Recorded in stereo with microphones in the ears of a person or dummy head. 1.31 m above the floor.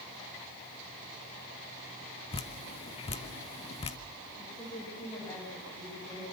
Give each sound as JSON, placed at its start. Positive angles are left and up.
{"t": 2.3, "sound": "dripping", "side_deg": 30, "distance_m": 1.2}
{"t": 4.4, "sound": "a woman speaking", "side_deg": 15, "distance_m": 6.5}